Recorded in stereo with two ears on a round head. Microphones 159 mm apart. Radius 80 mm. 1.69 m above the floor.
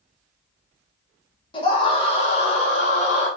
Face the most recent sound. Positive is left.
turn(degrees=45)  # may be behind; listen again after turning